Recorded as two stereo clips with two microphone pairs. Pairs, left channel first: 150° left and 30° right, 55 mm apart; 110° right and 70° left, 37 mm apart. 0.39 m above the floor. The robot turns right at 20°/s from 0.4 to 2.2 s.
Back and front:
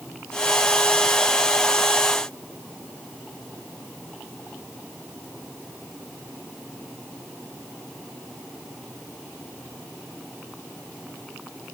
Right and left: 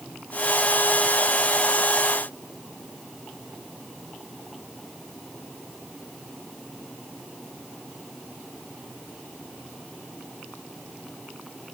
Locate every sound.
Only background noise.